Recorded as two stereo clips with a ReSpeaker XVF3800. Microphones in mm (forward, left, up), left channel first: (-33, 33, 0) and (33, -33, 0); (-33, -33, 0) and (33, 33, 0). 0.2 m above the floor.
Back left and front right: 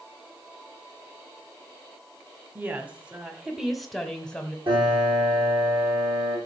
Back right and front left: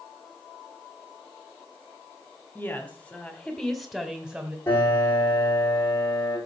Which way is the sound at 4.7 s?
70° right.